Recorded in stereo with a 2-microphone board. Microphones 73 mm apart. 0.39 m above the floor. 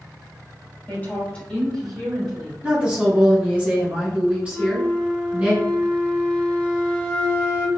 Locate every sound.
0.9 s a woman speaking: 30° left (ahead or behind), 1.3 m; by 2.5 s 15° right (ahead or behind), 1.4 m
2.6 s a woman speaking: 20° right (ahead or behind), 1.4 m
4.5 s a flute: 20° left (ahead or behind), 0.6 m